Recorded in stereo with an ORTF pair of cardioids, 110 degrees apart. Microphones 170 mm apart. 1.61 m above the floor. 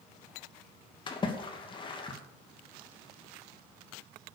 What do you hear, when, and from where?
1.1 s a splash: 30° left, 2.5 m